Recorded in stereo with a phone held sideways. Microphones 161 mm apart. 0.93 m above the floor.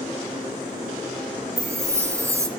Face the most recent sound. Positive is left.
turn(degrees=-20)  # may be behind; listen again after turning